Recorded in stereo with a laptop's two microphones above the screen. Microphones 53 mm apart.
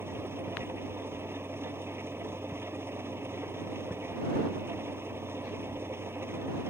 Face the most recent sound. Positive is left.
turn(degrees=-45)  # may be behind; listen again after turning